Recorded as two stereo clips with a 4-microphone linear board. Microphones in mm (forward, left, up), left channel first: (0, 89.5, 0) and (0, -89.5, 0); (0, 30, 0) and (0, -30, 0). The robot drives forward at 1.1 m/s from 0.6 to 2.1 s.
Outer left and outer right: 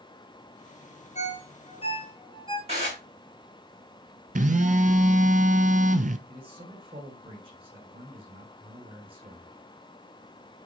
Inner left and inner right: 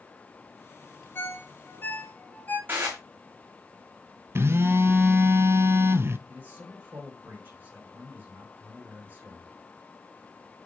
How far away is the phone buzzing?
About 0.6 m.